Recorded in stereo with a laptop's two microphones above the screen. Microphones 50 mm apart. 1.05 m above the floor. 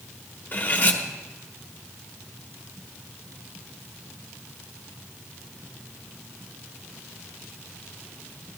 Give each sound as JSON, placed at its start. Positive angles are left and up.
{"t": 0.5, "sound": "cutlery clinking", "side_deg": 35, "distance_m": 1.3}